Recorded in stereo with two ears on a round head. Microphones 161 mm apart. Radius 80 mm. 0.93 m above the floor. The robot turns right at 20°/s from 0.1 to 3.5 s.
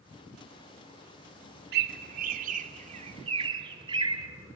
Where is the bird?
60° right (ahead or behind), 2.5 m; by 4.3 s 30° right (ahead or behind), 2.5 m.